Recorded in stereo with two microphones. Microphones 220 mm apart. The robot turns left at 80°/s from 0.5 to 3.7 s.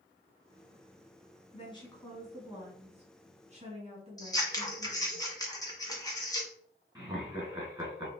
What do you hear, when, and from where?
1.5 s a woman speaking: 55° left, 1.9 m; by 5.2 s 115° right, 1.9 m
4.2 s scissors: 15° left (ahead or behind), 1.2 m
7.0 s laughter: 20° right (ahead or behind), 2 m